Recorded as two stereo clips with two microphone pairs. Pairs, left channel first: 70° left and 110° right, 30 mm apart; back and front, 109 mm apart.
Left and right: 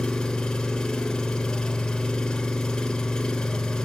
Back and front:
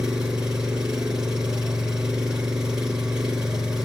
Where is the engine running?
70° left, 1.2 m.